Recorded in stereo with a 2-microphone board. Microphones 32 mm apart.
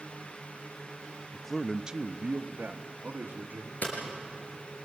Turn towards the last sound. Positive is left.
turn(degrees=60)  # may be behind; listen again after turning